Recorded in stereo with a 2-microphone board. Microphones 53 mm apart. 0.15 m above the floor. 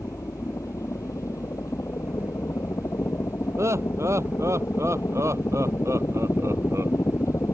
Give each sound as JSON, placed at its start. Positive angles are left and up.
{"t": 0.0, "sound": "a helicopter", "side_deg": 70}
{"t": 3.6, "sound": "laughter", "side_deg": -65}